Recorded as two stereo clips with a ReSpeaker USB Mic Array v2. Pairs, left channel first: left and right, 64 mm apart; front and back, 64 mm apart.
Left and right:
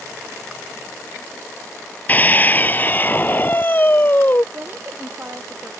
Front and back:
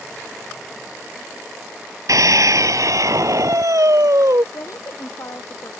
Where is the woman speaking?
35° right.